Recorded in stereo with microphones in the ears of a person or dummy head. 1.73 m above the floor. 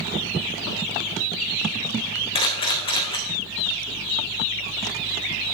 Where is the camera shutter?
20° left (ahead or behind), 3 m.